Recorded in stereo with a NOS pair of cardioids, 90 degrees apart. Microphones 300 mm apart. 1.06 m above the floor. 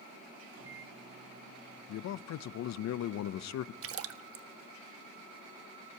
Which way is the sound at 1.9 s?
65° left.